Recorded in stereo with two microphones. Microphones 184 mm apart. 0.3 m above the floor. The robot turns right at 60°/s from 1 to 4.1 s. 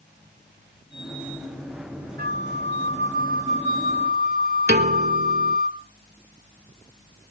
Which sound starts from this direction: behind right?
A flute, at 2.2 s.